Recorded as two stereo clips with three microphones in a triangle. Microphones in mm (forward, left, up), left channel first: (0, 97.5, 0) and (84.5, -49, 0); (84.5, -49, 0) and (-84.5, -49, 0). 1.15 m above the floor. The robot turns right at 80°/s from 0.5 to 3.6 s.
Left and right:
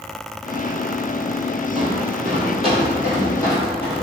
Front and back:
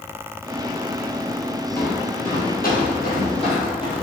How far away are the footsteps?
About 1.7 m.